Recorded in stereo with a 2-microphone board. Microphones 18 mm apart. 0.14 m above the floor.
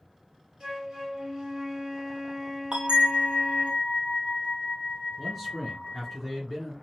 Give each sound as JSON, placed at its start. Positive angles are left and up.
{"t": 0.6, "sound": "a flute", "side_deg": -45, "distance_m": 1.5}
{"t": 2.7, "sound": "a bell", "side_deg": -70, "distance_m": 0.9}
{"t": 5.2, "sound": "a man speaking", "side_deg": -10, "distance_m": 1.9}